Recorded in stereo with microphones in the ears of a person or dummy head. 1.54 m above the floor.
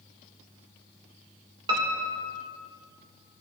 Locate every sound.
1.7 s a piano: 25° right (ahead or behind), 1.6 m